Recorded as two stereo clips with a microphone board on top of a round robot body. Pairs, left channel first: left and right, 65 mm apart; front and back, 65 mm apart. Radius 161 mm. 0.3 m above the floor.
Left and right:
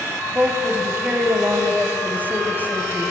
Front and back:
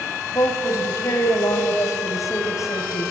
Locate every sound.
0.3 s a woman speaking: 30° right, 3 m